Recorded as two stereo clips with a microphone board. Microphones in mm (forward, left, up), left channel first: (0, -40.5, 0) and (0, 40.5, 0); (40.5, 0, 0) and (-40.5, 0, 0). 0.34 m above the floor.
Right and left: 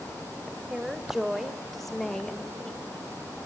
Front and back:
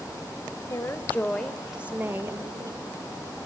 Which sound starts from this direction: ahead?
A woman speaking, at 0.7 s.